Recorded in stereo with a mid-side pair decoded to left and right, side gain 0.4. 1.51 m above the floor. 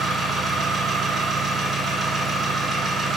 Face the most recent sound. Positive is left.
turn(degrees=-45)